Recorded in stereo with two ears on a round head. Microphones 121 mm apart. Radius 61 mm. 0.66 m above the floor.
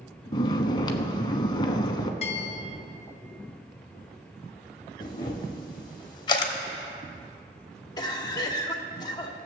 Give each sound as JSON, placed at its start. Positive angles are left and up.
{"t": 0.3, "sound": "snoring", "side_deg": 35, "distance_m": 0.8}
{"t": 2.2, "sound": "a bell", "side_deg": 50, "distance_m": 0.8}
{"t": 5.0, "sound": "a camera shutter", "side_deg": 35, "distance_m": 1.3}
{"t": 8.0, "sound": "a cough", "side_deg": 30, "distance_m": 1.2}